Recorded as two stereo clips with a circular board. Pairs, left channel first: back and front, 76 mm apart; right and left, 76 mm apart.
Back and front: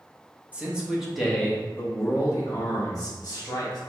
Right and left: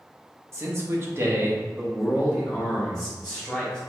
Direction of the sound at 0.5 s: 65° left.